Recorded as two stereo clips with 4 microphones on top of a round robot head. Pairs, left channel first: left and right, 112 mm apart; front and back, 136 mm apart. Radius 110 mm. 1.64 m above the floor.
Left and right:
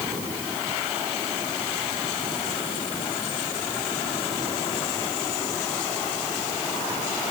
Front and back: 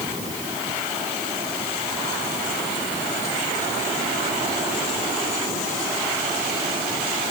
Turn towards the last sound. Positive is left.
No sound to turn to.